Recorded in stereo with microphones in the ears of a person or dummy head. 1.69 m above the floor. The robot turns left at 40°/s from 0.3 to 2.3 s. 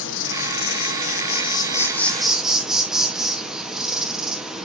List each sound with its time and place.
0.0 s an insect: 80° left, 1.3 m; by 4.6 s straight ahead, 1.3 m